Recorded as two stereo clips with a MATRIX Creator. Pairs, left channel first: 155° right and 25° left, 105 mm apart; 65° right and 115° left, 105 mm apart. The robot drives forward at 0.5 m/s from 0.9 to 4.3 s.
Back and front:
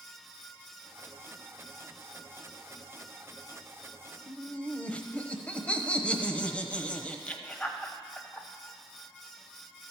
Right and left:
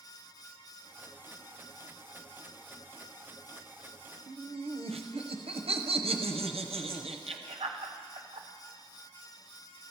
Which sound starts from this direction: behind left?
Laughter, at 4.3 s.